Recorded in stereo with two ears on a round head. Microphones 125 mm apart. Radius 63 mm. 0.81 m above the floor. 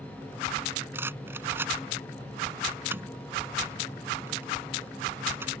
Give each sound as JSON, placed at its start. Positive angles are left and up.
{"t": 0.9, "sound": "a rattle", "side_deg": -15}